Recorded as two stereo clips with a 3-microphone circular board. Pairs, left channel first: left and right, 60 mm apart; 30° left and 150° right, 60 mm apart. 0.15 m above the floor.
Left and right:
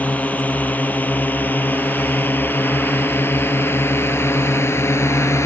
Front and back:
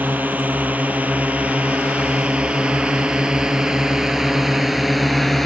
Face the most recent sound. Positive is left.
turn(degrees=115)